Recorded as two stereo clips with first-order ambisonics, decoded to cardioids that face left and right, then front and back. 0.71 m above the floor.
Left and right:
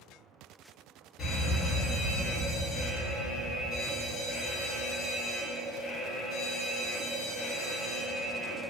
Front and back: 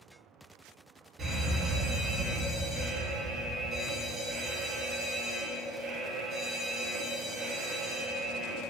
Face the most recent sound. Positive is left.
turn(degrees=135)